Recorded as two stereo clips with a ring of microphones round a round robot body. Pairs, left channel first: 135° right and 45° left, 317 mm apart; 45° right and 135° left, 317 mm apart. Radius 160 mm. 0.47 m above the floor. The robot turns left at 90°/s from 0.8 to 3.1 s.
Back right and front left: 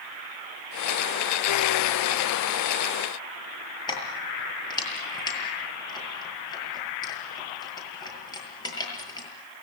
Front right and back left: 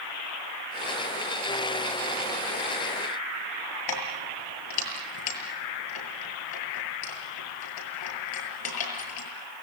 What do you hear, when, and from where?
3.9 s keys jangling: 60° right, 7.5 m